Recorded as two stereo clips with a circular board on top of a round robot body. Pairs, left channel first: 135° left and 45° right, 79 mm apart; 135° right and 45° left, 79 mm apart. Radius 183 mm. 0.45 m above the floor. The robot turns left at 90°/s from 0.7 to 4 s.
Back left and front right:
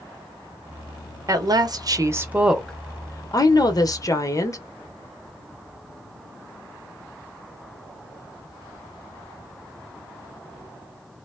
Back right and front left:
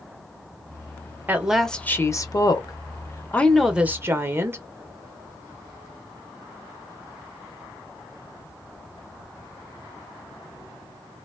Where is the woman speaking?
15° right, 1.1 m; by 4.6 s 100° left, 1.1 m.